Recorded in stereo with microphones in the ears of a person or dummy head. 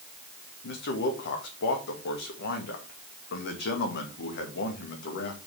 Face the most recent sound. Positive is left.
turn(degrees=55)  # may be behind; listen again after turning